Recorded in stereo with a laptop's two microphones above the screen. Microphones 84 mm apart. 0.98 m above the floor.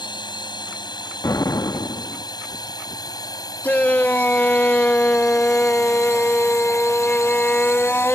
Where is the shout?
20° left (ahead or behind).